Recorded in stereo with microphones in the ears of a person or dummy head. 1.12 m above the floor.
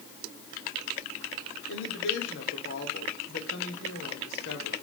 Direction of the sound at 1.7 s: 70° left (ahead or behind).